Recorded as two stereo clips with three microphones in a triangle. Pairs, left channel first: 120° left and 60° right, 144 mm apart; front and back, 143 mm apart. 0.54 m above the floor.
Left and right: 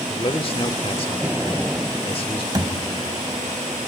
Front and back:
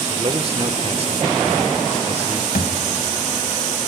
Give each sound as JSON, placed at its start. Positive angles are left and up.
{"t": 0.1, "sound": "a man speaking", "azimuth_deg": 155, "distance_m": 1.4}
{"t": 2.5, "sound": "a thud", "azimuth_deg": 0, "distance_m": 1.8}